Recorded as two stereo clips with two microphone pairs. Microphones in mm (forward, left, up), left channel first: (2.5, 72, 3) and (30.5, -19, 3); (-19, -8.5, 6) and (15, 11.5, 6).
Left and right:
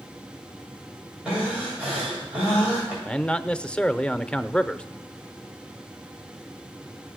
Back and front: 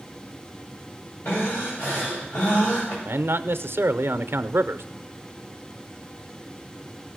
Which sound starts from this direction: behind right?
Breathing, at 1.2 s.